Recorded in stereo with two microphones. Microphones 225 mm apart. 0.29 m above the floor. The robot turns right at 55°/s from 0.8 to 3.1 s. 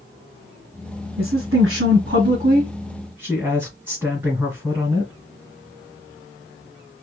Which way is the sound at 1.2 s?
115° right.